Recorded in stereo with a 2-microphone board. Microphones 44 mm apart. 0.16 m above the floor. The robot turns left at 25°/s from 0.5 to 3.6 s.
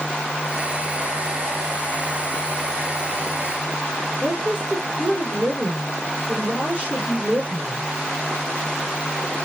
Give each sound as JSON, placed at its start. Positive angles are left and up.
{"t": 4.2, "sound": "a woman speaking", "side_deg": -20, "distance_m": 3.5}